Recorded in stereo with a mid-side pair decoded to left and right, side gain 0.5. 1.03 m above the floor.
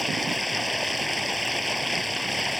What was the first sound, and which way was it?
Running water, 5° left.